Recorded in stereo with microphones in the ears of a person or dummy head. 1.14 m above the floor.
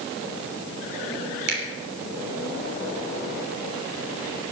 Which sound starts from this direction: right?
A finger snap, at 1.5 s.